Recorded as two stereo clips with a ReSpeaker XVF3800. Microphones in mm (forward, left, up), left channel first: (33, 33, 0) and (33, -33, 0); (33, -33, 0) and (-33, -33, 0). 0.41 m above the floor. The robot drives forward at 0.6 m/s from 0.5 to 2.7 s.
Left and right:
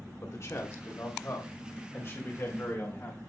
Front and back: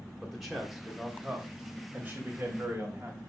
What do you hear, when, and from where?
0.2 s a man speaking: 95° left, 2 m; by 3.2 s 130° left, 2.5 m